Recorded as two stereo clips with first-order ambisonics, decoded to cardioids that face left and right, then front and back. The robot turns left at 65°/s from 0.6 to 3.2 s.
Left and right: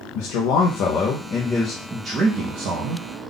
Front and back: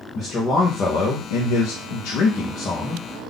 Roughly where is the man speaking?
Left.